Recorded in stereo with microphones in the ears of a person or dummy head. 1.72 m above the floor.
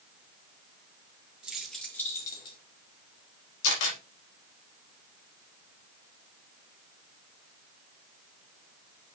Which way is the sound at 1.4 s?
5° right (ahead or behind).